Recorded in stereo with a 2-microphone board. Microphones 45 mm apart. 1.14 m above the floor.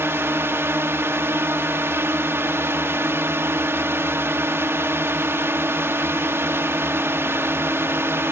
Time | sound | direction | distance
0.0 | a drone | 65° right (ahead or behind) | ?